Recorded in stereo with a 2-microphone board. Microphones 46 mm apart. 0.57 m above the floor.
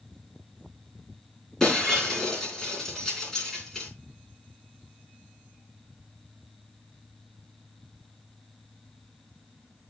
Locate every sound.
1.6 s breaking glass: 10° left (ahead or behind), 3.5 m